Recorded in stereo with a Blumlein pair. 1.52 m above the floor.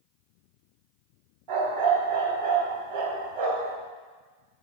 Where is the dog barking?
35° right, 3.5 m.